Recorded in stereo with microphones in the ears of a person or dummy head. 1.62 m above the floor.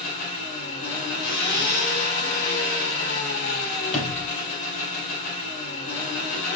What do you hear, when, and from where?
0.0 s an engine running: 40° left (ahead or behind), 3 m
1.2 s a zipper: 45° left (ahead or behind), 1.9 m
3.9 s a sliding door: 35° left (ahead or behind), 4 m